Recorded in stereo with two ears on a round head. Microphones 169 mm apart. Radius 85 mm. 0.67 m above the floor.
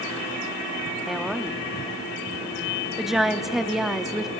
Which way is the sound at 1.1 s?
Centre (ahead or behind).